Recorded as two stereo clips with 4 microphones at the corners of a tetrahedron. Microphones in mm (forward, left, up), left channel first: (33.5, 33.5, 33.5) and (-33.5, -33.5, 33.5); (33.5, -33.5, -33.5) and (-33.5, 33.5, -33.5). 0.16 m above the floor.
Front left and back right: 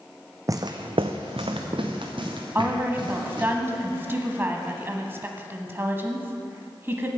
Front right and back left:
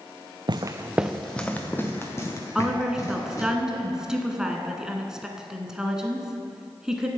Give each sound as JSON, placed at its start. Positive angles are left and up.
{"t": 0.5, "sound": "footsteps", "azimuth_deg": 170, "distance_m": 0.7}
{"t": 2.5, "sound": "a woman speaking", "azimuth_deg": -155, "distance_m": 1.0}